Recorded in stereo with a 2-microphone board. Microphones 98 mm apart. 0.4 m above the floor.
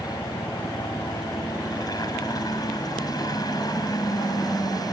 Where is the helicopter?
45° left (ahead or behind).